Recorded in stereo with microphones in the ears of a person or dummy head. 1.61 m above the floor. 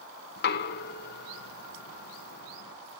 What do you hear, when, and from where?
0.4 s knocking: 65° left (ahead or behind), 1.2 m